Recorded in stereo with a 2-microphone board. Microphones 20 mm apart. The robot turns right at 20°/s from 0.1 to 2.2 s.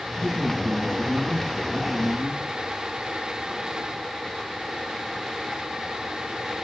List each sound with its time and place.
0.2 s a man speaking: 55° right, 9.5 m; by 2.5 s 15° right, 9.5 m